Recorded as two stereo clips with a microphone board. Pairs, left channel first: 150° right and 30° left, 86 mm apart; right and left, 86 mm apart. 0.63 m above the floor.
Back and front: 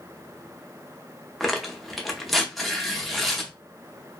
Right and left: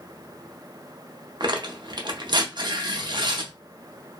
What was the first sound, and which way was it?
Tearing paper, 120° left.